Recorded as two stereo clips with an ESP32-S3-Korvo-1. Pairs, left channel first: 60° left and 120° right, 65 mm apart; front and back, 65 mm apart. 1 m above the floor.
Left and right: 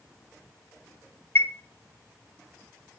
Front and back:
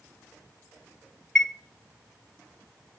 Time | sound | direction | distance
1.4 | a chime | 75° left | 1.0 m